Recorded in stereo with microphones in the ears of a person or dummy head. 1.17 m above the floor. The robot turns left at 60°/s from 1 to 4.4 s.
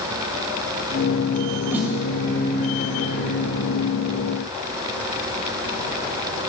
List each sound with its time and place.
1.7 s a snare drum: 20° right (ahead or behind), 0.8 m; by 1.9 s 10° right (ahead or behind), 0.8 m